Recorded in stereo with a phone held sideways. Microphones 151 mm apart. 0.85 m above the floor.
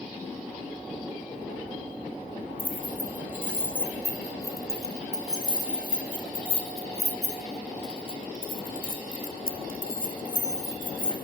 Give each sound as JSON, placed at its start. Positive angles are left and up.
{"t": 2.6, "sound": "keys jangling", "side_deg": 10, "distance_m": 6.5}